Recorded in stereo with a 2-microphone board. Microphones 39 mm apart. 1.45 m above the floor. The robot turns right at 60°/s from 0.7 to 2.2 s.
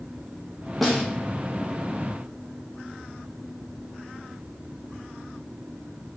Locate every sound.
0.8 s a snare drum: centre (ahead or behind), 0.6 m; by 1.0 s 10° left (ahead or behind), 0.6 m